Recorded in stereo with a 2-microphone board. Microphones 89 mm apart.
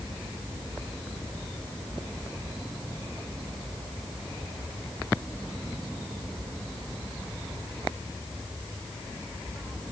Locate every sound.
Only background noise.